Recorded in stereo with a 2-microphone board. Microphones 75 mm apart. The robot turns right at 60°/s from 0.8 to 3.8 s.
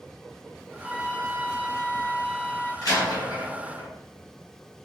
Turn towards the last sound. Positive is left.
turn(degrees=55)  # may be behind; listen again after turning